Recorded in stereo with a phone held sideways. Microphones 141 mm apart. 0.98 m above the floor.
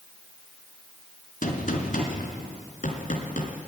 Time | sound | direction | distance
1.4 | a gunshot | 70° left (ahead or behind) | 2 m